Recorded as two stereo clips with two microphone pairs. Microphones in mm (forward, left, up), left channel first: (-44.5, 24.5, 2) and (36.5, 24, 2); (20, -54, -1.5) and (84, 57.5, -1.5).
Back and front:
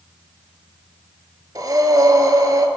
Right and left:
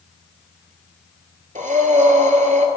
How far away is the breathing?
About 0.6 m.